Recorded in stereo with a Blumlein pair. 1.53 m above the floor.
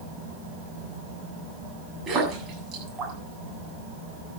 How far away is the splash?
About 8 m.